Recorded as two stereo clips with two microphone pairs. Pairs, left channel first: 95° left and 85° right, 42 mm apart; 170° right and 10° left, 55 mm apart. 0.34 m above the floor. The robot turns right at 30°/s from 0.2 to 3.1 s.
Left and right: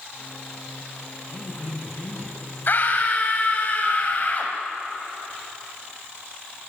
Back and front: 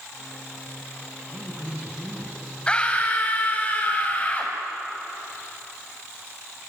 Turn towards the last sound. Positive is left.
turn(degrees=135)